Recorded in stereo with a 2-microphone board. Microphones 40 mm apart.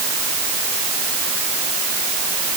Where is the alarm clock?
I don't hear an alarm clock.